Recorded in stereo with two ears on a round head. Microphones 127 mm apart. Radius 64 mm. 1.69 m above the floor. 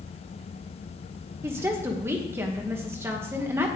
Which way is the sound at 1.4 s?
15° right (ahead or behind).